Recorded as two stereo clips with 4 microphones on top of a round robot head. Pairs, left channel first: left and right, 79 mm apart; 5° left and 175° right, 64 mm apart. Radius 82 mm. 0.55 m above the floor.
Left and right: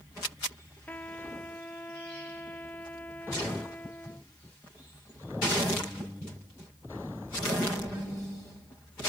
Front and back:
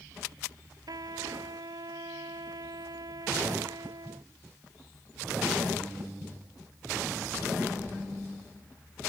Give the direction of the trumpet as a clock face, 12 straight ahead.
7 o'clock.